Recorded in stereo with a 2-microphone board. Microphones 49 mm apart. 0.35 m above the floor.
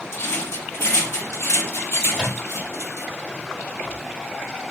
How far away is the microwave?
About 1.6 m.